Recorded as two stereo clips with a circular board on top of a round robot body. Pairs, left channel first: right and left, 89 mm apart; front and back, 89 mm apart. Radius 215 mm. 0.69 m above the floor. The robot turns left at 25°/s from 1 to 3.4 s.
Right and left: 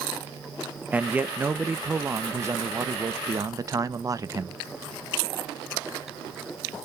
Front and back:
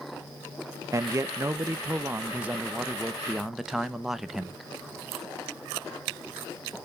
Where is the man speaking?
155° left, 0.9 m; by 4.6 s 95° left, 0.9 m.